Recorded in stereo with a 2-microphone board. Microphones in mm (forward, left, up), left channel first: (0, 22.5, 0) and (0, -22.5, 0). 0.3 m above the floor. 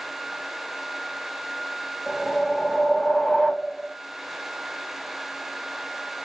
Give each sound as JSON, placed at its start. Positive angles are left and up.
{"t": 2.1, "sound": "a whoosh", "side_deg": 10, "distance_m": 0.9}